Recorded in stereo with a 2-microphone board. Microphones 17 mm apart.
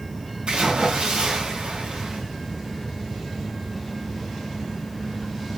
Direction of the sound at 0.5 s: 80° right.